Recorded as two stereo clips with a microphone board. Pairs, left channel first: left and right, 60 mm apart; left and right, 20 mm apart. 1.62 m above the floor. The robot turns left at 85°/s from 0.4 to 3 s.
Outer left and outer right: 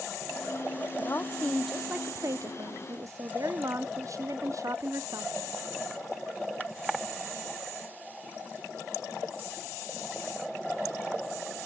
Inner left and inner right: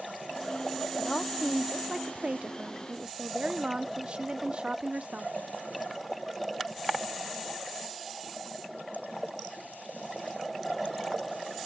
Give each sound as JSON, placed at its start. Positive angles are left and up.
{"t": 1.0, "sound": "a woman speaking", "azimuth_deg": 55, "distance_m": 0.6}